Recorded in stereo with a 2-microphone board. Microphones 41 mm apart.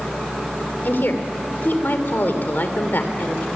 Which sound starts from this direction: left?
A woman speaking, at 0.8 s.